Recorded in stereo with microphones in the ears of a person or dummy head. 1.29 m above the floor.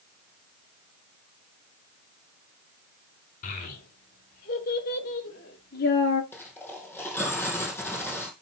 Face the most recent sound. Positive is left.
turn(degrees=10)  # may be behind; listen again after turning